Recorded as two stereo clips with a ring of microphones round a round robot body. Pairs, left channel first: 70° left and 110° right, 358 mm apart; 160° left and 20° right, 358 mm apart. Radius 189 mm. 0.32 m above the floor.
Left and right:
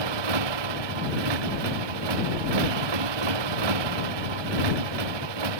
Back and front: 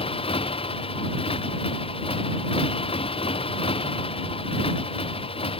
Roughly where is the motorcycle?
Behind right.